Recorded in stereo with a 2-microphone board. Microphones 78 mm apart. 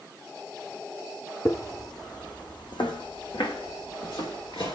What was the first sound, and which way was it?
Footsteps, 45° left (ahead or behind).